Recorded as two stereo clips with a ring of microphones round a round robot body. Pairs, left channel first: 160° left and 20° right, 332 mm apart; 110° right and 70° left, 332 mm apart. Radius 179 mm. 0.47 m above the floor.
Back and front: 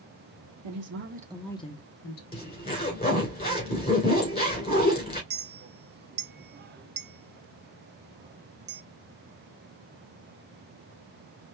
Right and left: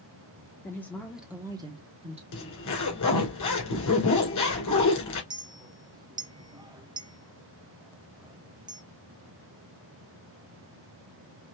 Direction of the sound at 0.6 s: 30° right.